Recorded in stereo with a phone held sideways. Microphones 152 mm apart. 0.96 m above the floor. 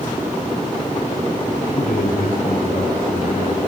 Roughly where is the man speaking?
Left.